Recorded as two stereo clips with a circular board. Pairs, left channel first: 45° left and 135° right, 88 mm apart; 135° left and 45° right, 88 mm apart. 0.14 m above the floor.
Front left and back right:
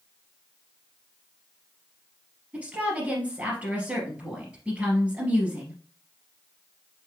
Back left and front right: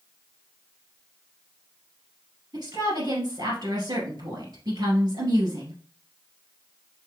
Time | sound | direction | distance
2.5 | a woman speaking | 65° right | 2.5 m